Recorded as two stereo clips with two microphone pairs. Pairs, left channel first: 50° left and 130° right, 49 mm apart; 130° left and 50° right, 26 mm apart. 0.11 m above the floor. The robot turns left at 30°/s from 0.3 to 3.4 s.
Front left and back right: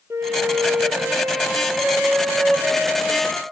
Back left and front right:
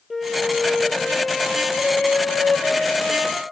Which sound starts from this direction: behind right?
A flute, at 0.1 s.